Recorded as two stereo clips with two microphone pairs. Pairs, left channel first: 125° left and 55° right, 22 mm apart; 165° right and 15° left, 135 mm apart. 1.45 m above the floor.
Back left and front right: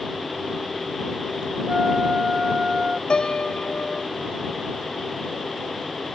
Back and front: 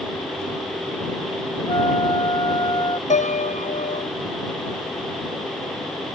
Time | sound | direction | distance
1.7 | a flute | 105° right | ?
3.1 | a piano | 170° left | ?